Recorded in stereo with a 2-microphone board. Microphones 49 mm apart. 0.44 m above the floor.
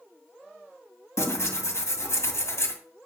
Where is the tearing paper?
70° left (ahead or behind), 2 m.